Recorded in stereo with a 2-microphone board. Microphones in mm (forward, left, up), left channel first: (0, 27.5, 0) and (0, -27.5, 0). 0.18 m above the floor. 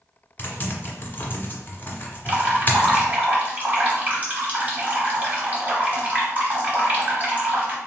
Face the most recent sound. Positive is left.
turn(degrees=-30)  # may be behind; listen again after turning